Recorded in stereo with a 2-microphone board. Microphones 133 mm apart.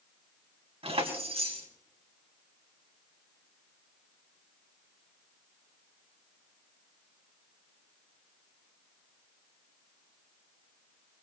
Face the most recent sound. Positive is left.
turn(degrees=-45)  # may be behind; listen again after turning